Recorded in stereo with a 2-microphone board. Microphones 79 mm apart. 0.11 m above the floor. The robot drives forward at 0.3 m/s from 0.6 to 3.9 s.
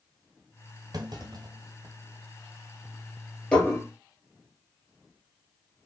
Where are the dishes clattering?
15° left (ahead or behind), 1.8 m.